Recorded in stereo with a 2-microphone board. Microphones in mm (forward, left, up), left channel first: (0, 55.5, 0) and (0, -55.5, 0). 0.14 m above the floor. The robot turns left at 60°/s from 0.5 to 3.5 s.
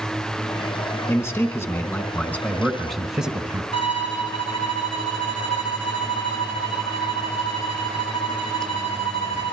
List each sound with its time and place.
1.1 s a man speaking: 20° left (ahead or behind), 1.4 m; by 3.6 s 10° right (ahead or behind), 1.4 m
3.7 s a violin: 70° left (ahead or behind), 5 m